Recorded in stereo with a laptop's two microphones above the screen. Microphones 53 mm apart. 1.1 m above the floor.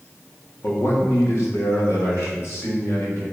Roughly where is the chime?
I don't hear a chime.